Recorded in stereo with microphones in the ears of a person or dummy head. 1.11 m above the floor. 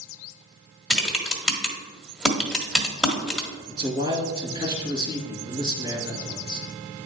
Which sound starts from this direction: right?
A man speaking, at 3.7 s.